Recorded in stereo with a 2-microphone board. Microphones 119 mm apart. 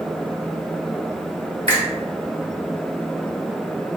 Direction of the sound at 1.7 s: 50° right (ahead or behind).